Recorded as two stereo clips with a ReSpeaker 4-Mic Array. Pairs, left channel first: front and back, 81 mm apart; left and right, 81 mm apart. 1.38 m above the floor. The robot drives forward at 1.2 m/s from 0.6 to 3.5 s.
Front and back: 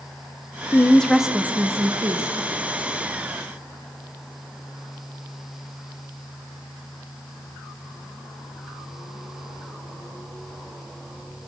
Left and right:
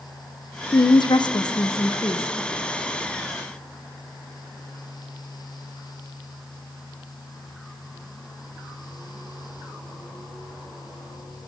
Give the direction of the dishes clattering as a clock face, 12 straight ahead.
No dishes clattering in this recording.